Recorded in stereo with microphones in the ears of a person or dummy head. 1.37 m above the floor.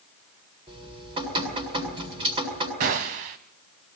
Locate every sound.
0.7 s dripping: 30° right (ahead or behind), 7 m
2.8 s a gunshot: 45° right (ahead or behind), 1.6 m